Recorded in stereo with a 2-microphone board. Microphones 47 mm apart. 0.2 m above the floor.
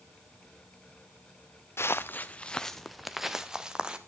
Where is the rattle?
No rattle in this recording.